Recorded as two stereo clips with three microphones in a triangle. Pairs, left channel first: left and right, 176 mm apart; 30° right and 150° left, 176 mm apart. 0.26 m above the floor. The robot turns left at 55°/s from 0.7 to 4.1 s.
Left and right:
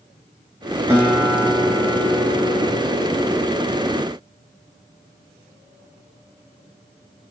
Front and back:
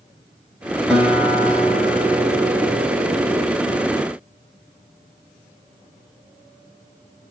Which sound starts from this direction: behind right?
A guitar, at 0.9 s.